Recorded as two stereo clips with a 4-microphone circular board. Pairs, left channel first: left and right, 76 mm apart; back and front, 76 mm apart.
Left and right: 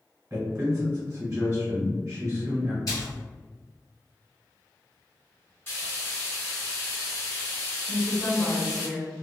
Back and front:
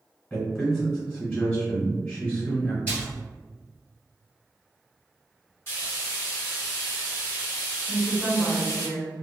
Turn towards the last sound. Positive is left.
turn(degrees=140)